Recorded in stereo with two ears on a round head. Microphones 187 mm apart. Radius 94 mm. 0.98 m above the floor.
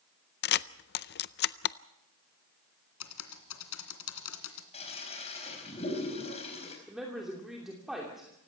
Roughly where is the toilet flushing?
Left.